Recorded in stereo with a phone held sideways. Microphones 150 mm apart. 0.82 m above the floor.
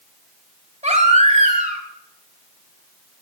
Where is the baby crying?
60° right (ahead or behind), 3 m.